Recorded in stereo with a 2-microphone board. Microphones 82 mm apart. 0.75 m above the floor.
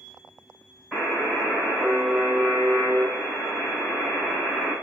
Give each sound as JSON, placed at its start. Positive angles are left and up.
{"t": 0.9, "sound": "a buzzer", "side_deg": 0, "distance_m": 1.8}